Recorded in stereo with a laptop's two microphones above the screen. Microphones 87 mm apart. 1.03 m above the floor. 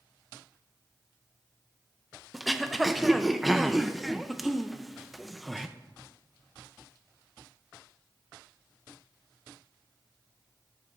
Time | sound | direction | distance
2.3 | throat clearing | centre (ahead or behind) | 0.7 m